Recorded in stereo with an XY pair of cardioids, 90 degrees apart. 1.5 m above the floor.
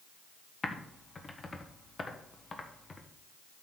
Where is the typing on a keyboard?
30° left, 1.5 m.